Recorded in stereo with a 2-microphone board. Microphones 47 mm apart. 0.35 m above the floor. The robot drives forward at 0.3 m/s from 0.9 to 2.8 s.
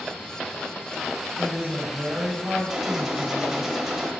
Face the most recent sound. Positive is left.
turn(degrees=-5)  # may be behind; listen again after turning